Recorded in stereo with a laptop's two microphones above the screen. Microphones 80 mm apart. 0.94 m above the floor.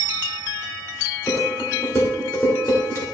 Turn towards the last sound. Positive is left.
turn(degrees=40)  # may be behind; listen again after turning